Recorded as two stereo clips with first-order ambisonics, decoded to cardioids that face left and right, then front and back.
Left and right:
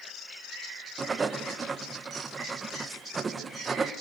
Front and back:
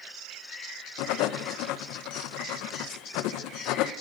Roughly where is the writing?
Ahead.